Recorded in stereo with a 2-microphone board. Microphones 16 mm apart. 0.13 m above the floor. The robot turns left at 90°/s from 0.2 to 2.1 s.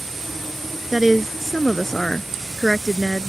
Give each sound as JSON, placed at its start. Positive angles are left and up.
{"t": 0.9, "sound": "a woman speaking", "azimuth_deg": -140}